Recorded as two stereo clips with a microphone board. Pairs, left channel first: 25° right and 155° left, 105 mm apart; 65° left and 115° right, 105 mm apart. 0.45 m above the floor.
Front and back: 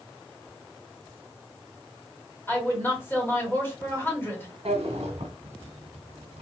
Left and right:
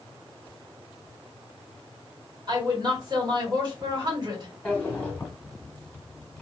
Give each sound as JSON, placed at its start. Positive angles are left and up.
{"t": 2.5, "sound": "a woman speaking", "azimuth_deg": -85, "distance_m": 1.3}
{"t": 4.7, "sound": "a drawer", "azimuth_deg": 145, "distance_m": 0.9}